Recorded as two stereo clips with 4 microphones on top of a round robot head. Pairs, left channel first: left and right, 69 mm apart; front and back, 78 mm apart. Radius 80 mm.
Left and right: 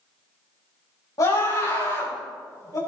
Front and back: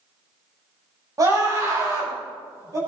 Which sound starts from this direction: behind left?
A scream, at 1.2 s.